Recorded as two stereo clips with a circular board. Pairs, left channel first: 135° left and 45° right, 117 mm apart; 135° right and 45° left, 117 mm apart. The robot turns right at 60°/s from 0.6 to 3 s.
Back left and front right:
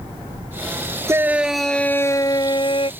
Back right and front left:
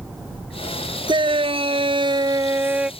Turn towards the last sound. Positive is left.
turn(degrees=130)